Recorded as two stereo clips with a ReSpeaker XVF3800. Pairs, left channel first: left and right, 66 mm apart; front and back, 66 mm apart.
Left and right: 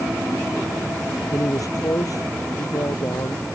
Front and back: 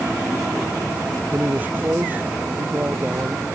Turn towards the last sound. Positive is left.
turn(degrees=115)